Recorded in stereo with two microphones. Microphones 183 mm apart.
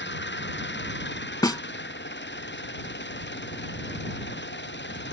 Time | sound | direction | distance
0.0 | an engine running | 75° left (ahead or behind) | ?
1.4 | a snare drum | 20° left (ahead or behind) | ?